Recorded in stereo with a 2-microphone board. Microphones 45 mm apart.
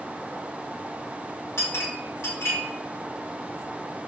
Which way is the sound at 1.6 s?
80° left.